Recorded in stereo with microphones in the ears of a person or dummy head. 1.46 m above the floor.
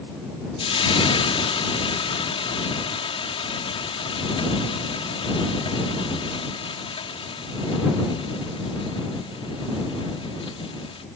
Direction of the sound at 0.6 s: 30° left (ahead or behind).